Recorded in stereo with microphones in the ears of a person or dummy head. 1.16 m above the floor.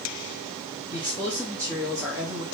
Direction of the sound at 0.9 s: 5° left (ahead or behind).